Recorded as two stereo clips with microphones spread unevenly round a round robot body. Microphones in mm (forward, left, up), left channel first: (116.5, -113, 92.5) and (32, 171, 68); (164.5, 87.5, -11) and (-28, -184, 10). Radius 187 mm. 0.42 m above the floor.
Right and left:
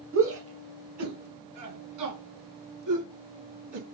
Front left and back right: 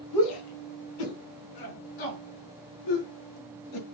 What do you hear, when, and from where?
0.1 s a shout: 65° left, 2.5 m; by 3.8 s 95° left, 6.5 m